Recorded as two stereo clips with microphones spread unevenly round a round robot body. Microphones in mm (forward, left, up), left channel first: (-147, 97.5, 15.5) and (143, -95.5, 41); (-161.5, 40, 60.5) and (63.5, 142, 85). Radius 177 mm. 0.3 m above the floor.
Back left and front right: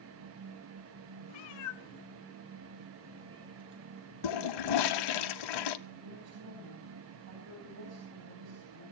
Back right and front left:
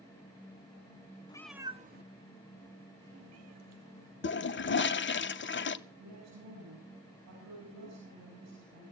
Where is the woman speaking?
15° left, 10 m.